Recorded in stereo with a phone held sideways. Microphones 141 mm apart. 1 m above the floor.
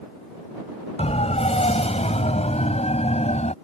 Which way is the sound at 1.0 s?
50° left (ahead or behind).